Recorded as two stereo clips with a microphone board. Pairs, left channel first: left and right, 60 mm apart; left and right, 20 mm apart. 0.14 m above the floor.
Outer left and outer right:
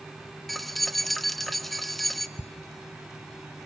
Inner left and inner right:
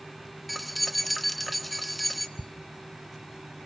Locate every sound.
0.5 s keys jangling: centre (ahead or behind), 1.2 m
2.4 s ticking: 65° left (ahead or behind), 0.6 m